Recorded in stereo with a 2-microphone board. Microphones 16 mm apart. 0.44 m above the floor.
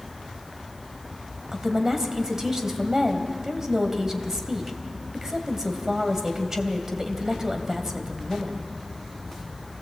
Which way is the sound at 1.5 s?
25° right (ahead or behind).